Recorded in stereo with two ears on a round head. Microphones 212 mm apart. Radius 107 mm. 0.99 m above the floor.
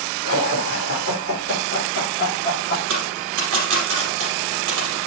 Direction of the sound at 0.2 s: 55° left (ahead or behind).